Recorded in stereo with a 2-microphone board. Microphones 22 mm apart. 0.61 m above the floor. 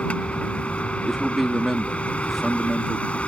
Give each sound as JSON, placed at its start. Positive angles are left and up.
{"t": 0.0, "sound": "a vehicle", "side_deg": 85}
{"t": 1.0, "sound": "a man speaking", "side_deg": -5}